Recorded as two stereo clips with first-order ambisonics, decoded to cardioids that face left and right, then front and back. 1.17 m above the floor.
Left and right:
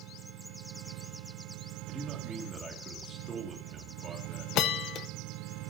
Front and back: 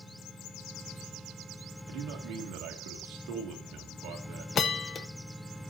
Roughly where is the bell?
Ahead left.